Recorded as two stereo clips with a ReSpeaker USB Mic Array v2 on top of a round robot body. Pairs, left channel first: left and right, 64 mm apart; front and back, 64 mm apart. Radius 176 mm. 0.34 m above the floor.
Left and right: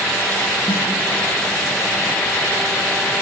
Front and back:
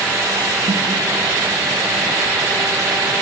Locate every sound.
0.7 s a snare drum: 160° left, 3.5 m